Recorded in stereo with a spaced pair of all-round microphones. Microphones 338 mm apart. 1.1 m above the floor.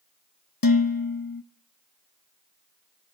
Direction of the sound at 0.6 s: 80° left.